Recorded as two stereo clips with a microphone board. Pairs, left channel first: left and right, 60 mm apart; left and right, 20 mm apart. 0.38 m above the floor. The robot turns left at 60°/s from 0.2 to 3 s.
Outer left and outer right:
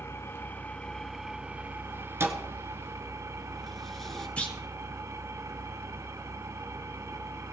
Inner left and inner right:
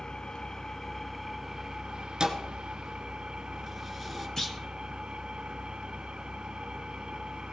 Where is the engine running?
55° left, 1.0 m; by 7.5 s 115° right, 1.0 m.